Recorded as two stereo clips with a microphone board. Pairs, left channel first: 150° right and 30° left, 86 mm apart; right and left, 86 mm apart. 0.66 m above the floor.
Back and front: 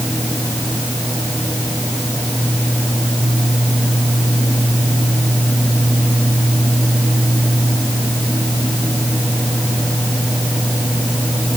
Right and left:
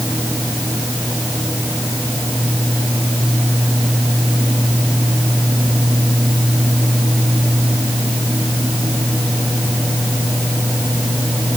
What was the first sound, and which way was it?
Only background noise.